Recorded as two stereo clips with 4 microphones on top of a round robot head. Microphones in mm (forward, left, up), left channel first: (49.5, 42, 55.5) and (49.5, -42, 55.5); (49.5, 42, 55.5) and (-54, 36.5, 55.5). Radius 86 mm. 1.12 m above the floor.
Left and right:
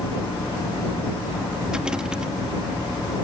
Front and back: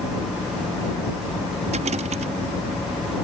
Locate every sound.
1.7 s a rattle: 175° right